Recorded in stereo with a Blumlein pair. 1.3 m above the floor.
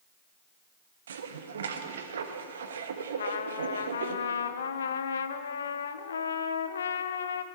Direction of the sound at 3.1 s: 70° left.